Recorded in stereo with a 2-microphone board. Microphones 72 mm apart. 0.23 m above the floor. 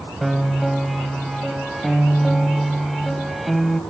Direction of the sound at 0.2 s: Centre (ahead or behind).